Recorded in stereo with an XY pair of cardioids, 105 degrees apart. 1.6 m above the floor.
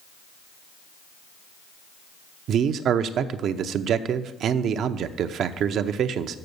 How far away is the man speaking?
About 0.6 m.